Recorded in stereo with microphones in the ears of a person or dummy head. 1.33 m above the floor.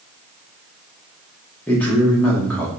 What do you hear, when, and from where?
1.7 s a man speaking: 10° left (ahead or behind), 1.0 m